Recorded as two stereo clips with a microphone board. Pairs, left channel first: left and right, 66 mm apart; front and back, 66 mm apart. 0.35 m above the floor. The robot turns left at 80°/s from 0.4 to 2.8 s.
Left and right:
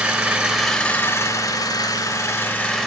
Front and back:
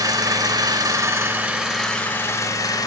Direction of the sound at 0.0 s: 160° right.